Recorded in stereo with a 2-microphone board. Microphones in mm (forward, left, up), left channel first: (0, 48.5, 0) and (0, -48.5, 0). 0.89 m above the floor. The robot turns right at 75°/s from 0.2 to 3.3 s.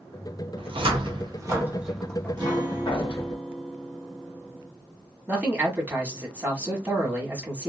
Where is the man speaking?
15° right (ahead or behind), 1.2 m.